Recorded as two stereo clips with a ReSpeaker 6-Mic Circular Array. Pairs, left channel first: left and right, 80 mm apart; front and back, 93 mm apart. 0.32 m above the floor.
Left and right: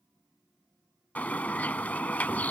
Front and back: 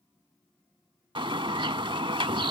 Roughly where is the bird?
Behind.